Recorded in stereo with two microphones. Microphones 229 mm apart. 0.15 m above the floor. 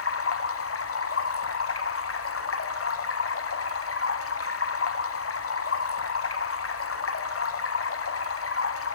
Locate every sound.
0.0 s running water: 80° left, 0.7 m